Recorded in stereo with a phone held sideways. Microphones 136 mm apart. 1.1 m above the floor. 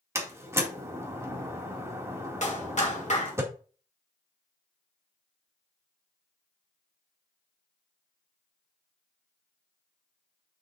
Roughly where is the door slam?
Centre.